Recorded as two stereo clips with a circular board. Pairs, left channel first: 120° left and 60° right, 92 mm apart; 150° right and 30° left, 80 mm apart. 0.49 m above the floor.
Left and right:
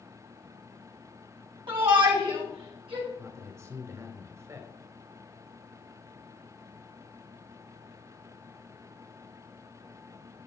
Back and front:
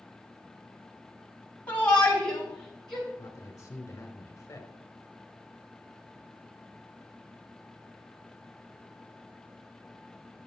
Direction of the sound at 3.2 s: 105° right.